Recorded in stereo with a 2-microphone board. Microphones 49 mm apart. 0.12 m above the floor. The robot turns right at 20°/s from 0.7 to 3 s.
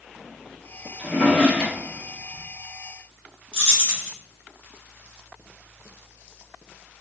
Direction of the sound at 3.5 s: 15° left (ahead or behind).